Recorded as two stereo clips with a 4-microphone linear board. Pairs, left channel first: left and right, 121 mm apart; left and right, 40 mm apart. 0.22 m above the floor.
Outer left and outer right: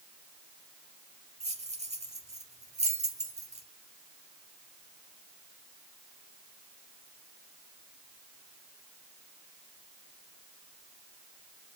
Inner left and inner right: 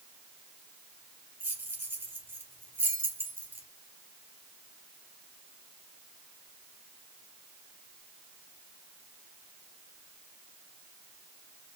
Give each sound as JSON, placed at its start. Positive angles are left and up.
{"t": 1.4, "sound": "keys jangling", "side_deg": -70, "distance_m": 2.5}